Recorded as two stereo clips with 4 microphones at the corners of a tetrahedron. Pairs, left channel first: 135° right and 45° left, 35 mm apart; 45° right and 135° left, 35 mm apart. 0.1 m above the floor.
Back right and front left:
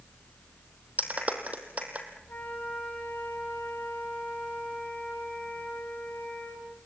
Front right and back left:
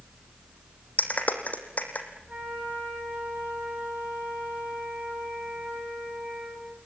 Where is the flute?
175° right, 7 m.